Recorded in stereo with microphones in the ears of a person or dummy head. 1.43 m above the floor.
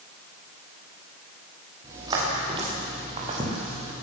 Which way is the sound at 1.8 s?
25° right (ahead or behind).